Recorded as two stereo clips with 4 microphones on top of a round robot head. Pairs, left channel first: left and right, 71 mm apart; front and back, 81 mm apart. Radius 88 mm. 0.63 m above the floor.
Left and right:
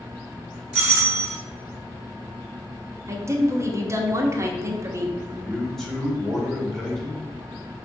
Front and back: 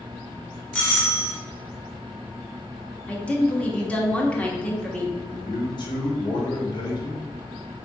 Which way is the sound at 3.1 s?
65° right.